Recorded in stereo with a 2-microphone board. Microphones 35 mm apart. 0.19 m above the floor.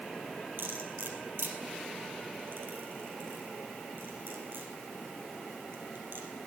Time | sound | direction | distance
0.6 | cutlery clinking | 75° right (ahead or behind) | 3 m